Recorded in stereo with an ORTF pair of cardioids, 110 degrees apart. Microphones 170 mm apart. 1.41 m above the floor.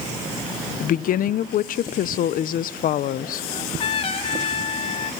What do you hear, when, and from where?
0.8 s a woman speaking: 55° left, 0.9 m
3.5 s a trumpet: 35° left, 2 m